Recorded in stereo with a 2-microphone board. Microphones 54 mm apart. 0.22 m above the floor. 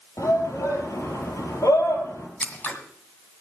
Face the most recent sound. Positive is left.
turn(degrees=25)  # may be behind; listen again after turning